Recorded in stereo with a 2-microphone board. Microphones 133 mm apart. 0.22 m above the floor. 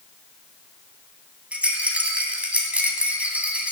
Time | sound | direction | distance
1.5 | a rattle | 10° right (ahead or behind) | 1.9 m